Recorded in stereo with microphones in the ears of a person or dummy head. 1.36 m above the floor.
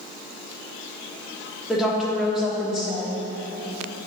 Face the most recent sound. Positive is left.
turn(degrees=-5)  # may be behind; listen again after turning